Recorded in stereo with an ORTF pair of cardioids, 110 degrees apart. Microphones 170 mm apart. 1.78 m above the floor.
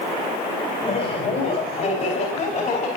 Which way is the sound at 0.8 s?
50° left.